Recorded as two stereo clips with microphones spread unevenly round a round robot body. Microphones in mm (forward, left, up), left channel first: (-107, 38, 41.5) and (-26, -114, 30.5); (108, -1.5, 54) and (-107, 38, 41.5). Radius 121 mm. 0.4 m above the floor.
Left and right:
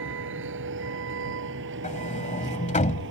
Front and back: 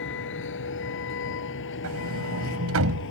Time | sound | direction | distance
0.0 | a vehicle | 50° right | ?
1.8 | a sliding door | 165° left | ?